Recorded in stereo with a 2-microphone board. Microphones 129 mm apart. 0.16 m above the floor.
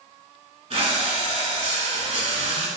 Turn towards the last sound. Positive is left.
turn(degrees=-55)  # may be behind; listen again after turning